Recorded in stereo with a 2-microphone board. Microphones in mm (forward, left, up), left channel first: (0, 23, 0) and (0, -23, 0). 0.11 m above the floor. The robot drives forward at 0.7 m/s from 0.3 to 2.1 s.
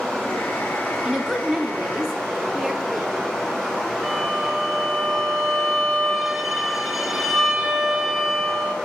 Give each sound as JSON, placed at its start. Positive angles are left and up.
{"t": 0.0, "sound": "running water", "side_deg": 15, "distance_m": 4.0}
{"t": 1.0, "sound": "a woman speaking", "side_deg": -5, "distance_m": 1.3}
{"t": 4.0, "sound": "a violin", "side_deg": -10, "distance_m": 0.9}